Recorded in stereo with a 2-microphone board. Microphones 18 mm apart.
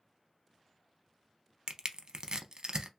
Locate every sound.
1.7 s crushing: 50° right (ahead or behind), 0.5 m